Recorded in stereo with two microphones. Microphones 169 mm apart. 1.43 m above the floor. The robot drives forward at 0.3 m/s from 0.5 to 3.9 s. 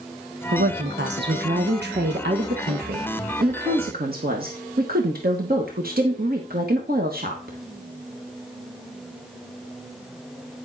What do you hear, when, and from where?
0.5 s a woman speaking: 75° right (ahead or behind), 1.4 m; by 7.6 s 65° right (ahead or behind), 1.5 m